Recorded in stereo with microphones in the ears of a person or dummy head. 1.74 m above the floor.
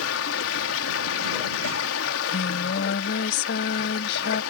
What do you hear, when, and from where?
0.0 s running water: 85° left
2.0 s singing: 65° left (ahead or behind)